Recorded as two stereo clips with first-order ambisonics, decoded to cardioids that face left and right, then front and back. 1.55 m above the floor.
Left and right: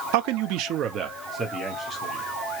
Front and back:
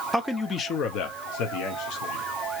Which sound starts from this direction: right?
A man speaking, at 0.1 s.